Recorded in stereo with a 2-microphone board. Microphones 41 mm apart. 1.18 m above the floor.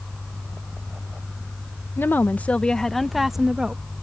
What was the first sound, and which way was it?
A woman speaking, 60° left (ahead or behind).